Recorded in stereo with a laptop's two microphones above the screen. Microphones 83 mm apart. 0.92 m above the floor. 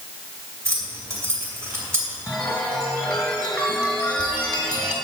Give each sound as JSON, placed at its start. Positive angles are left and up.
{"t": 0.7, "sound": "keys jangling", "side_deg": -30, "distance_m": 2.5}
{"t": 2.3, "sound": "a chime", "side_deg": 10, "distance_m": 2.0}